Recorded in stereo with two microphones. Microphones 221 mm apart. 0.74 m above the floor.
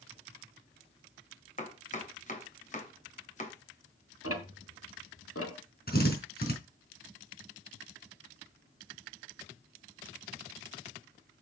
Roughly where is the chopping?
Left.